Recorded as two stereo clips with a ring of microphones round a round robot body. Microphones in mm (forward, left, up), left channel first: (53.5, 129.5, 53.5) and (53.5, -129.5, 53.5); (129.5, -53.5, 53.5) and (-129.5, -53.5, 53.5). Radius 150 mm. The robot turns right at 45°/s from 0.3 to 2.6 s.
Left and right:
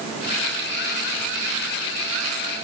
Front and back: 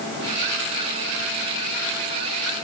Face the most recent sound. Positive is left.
No sound to turn to.